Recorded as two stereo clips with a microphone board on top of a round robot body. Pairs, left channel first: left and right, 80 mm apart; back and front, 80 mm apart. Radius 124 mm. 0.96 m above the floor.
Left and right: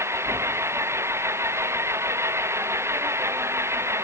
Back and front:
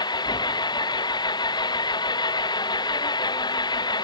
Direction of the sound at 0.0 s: 150° right.